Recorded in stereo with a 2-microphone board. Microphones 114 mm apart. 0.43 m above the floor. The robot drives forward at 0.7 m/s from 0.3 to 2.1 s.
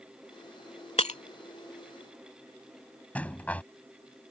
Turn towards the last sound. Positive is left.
turn(degrees=15)  # may be behind; listen again after turning